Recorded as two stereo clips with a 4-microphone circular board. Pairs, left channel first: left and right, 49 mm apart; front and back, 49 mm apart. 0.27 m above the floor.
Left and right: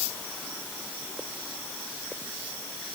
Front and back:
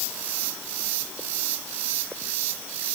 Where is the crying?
I don't hear crying.